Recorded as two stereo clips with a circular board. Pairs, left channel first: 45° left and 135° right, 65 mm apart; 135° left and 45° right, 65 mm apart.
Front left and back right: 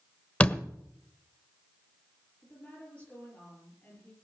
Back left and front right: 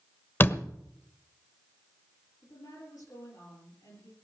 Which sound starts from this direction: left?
A door slam, at 0.4 s.